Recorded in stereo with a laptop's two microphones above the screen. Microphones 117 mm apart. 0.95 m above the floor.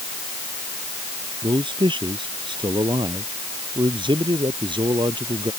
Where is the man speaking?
45° right (ahead or behind); by 5.5 s 40° right (ahead or behind).